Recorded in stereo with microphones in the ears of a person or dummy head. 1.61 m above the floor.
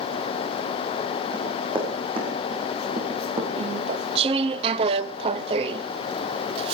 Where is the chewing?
30° right (ahead or behind), 0.5 m.